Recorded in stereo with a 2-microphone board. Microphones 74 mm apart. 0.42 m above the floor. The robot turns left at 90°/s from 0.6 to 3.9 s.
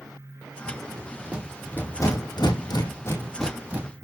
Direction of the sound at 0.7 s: 75° right (ahead or behind).